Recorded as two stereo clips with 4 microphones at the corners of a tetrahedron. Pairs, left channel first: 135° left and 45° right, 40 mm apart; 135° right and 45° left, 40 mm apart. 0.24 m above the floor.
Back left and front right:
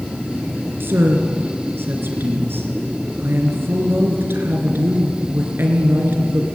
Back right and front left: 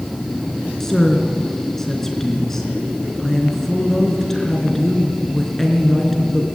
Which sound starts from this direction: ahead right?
A woman speaking, at 0.8 s.